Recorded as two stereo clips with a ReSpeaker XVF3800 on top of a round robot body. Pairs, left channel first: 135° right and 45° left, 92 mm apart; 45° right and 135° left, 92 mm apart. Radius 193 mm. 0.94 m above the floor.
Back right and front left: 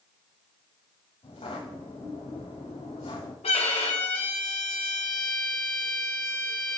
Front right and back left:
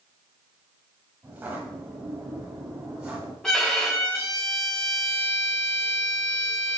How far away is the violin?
About 1.9 m.